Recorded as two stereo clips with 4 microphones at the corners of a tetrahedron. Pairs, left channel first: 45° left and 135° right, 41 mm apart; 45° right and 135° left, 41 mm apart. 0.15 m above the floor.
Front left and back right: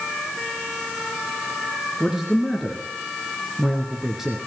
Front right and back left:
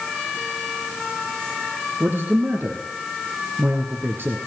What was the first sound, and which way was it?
A man speaking, 145° left.